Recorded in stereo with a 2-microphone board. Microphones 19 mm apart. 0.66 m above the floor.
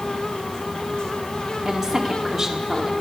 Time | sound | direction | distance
1.6 | a woman speaking | 35° right (ahead or behind) | 1.8 m